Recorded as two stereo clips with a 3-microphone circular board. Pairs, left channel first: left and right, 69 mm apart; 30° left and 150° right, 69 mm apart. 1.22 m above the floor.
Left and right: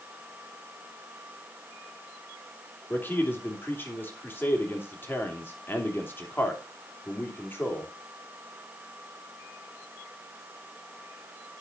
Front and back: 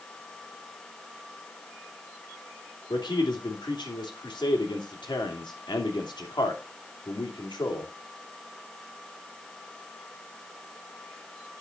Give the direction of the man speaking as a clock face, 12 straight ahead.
11 o'clock.